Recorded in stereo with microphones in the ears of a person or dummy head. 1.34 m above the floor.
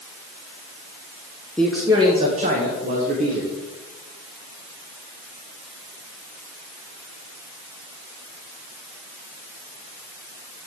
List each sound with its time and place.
1.6 s a man speaking: 10° left (ahead or behind), 0.9 m; by 3.5 s 50° right (ahead or behind), 2.5 m